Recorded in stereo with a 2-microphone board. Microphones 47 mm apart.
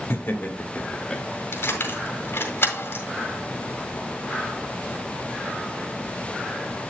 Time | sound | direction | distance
0.1 | laughter | 45° left (ahead or behind) | 1.9 m
1.5 | keys jangling | 50° left (ahead or behind) | 1.8 m